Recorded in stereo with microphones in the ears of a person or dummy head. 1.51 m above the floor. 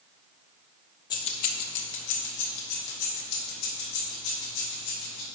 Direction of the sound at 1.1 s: 15° left (ahead or behind).